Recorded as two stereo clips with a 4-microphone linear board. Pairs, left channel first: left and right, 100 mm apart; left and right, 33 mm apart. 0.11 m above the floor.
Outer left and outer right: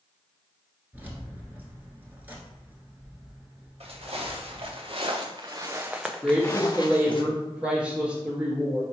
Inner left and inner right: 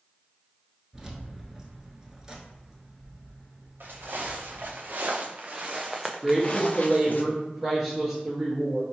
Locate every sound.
0.9 s keys jangling: 20° right (ahead or behind), 0.9 m
3.8 s footsteps: 75° right (ahead or behind), 1.6 m; by 7.2 s 50° left (ahead or behind), 1.0 m
6.2 s a woman speaking: 10° right (ahead or behind), 1.4 m